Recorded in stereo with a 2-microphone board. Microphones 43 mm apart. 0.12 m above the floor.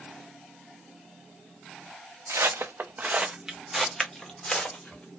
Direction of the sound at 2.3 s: 85° right.